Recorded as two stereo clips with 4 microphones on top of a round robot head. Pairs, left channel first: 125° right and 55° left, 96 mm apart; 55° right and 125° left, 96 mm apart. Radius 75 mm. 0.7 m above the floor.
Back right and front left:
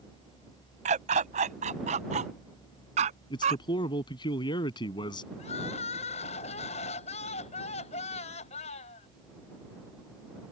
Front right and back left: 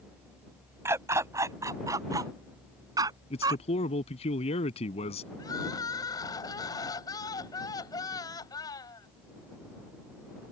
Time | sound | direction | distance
0.8 | a dog barking | 60° left | ?
3.3 | a man speaking | 80° right | ?
5.4 | crying | 110° right | ?